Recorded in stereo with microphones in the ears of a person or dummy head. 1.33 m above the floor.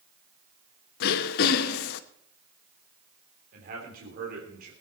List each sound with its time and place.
1.0 s throat clearing: 60° left (ahead or behind), 0.9 m
3.5 s a man speaking: 60° right (ahead or behind), 3 m